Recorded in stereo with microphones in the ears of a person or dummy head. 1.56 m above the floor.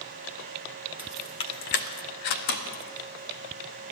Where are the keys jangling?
10° right (ahead or behind), 0.8 m; by 3.9 s 60° left (ahead or behind), 3.5 m.